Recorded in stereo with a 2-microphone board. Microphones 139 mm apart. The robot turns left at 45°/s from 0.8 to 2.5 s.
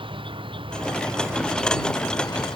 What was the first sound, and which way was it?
An insect, 140° right.